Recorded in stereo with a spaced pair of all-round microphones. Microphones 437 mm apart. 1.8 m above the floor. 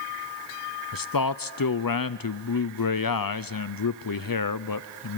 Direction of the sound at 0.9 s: 50° left (ahead or behind).